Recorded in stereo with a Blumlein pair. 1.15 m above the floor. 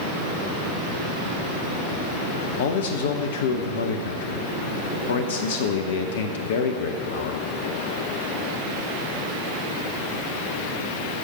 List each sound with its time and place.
2.6 s a man speaking: 60° left, 0.8 m